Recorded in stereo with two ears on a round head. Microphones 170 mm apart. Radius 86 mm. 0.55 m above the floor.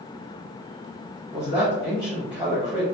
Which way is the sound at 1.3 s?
10° left (ahead or behind).